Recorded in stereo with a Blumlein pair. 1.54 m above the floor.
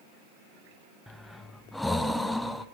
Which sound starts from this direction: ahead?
Breathing, at 1.1 s.